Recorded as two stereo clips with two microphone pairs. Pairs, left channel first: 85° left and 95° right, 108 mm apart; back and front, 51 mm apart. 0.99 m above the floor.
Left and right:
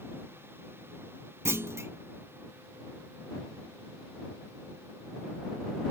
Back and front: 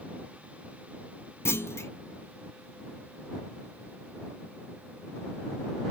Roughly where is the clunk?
Behind right.